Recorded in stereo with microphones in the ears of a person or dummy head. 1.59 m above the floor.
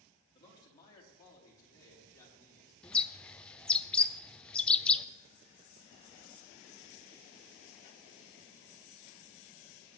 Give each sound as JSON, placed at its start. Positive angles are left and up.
{"t": 0.3, "sound": "a man speaking", "side_deg": 20, "distance_m": 2.5}
{"t": 2.8, "sound": "a bird", "side_deg": 5, "distance_m": 0.5}